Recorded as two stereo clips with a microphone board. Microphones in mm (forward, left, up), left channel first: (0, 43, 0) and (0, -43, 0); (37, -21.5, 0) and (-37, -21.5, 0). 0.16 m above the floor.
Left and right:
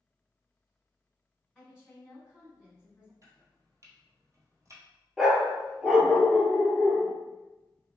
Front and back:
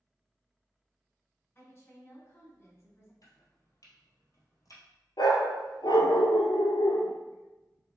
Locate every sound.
1.6 s a woman speaking: 15° right, 1.7 m
3.2 s chopping: 40° right, 1.5 m
5.2 s a dog barking: 5° right, 0.7 m